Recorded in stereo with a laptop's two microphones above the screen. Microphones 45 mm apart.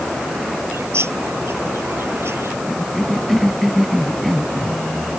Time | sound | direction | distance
0.7 | a bird | 80° right | ?
2.7 | a cough | centre (ahead or behind) | ?